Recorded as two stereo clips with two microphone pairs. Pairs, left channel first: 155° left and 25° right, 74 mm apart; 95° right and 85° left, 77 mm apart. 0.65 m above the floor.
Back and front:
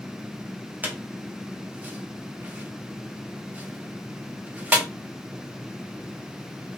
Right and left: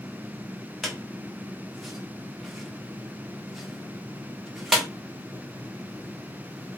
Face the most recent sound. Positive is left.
turn(degrees=-10)